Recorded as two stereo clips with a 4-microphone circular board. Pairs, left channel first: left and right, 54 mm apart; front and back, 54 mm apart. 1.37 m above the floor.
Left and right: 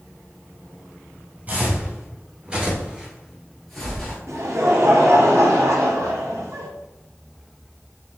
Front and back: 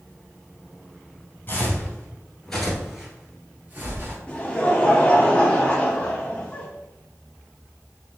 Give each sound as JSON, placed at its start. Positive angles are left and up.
{"t": 1.5, "sound": "footsteps", "azimuth_deg": -45, "distance_m": 1.9}
{"t": 4.3, "sound": "laughter", "azimuth_deg": -70, "distance_m": 1.1}